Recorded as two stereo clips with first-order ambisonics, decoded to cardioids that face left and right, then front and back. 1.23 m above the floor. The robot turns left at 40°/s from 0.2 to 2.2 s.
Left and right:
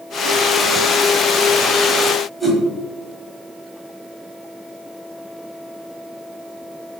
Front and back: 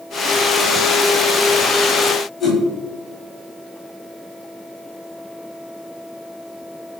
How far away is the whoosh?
About 1.1 m.